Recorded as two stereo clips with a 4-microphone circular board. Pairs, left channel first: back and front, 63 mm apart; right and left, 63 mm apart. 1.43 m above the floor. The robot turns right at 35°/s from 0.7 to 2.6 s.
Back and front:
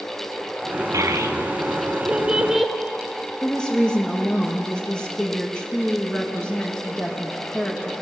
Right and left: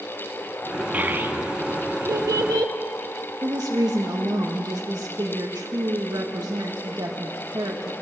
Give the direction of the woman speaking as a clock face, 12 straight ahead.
9 o'clock.